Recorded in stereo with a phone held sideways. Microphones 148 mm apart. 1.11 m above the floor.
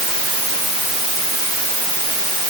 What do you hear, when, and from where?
Only background noise.